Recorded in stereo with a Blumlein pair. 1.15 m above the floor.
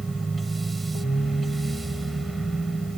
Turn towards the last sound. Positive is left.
turn(degrees=-10)